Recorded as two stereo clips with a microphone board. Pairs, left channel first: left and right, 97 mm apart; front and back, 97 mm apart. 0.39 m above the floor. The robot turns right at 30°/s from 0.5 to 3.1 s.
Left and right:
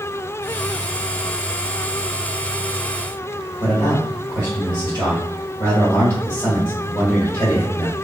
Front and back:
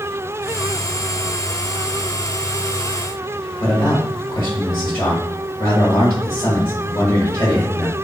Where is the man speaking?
40° left, 1.6 m.